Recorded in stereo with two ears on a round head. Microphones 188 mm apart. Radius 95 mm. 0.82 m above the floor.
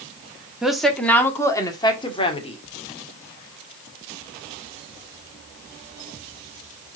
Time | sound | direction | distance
0.6 | a woman speaking | 5° right (ahead or behind) | 1.5 m